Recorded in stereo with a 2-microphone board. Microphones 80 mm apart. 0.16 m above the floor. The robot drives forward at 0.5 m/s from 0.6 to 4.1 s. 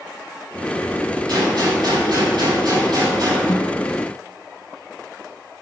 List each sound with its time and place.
1.3 s a gunshot: 60° right (ahead or behind), 6 m; by 3.4 s 50° right (ahead or behind), 6.5 m
3.5 s a snare drum: 50° left (ahead or behind), 1.8 m; by 3.8 s 45° left (ahead or behind), 1.9 m